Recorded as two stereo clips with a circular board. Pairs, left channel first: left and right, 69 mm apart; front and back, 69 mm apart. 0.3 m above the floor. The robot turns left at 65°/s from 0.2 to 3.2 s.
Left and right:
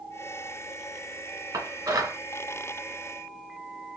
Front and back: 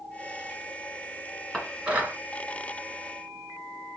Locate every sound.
1.5 s dishes clattering: 85° right, 2.0 m; by 2.2 s 130° right, 2.0 m